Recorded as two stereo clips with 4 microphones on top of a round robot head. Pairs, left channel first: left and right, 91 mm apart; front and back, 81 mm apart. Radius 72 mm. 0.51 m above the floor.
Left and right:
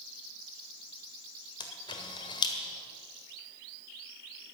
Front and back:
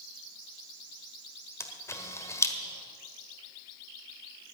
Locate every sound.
1.6 s a camera shutter: 50° left, 1.6 m